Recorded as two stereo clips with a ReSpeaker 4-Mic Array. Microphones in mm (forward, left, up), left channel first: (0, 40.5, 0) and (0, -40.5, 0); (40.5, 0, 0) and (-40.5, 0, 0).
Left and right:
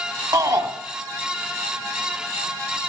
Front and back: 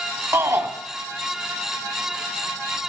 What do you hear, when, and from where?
0.3 s a shout: 125° right, 1.4 m